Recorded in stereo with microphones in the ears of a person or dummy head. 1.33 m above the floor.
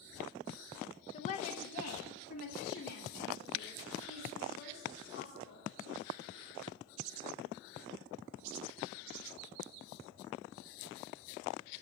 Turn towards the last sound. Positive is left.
turn(degrees=65)  # may be behind; listen again after turning